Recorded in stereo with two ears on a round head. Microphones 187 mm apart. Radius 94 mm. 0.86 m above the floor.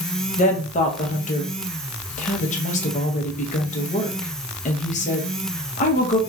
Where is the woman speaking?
35° left (ahead or behind), 0.7 m.